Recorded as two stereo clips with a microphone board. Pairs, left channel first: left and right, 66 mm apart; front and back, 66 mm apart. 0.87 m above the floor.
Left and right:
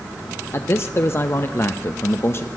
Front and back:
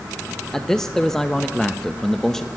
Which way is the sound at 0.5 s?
75° left.